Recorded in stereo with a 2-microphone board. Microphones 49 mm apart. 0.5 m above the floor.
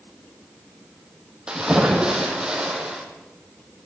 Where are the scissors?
I don't hear scissors.